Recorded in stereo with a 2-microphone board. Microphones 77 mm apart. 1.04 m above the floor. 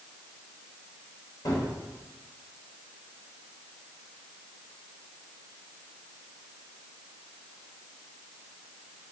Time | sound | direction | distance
1.4 | a gunshot | 55° left (ahead or behind) | 3 m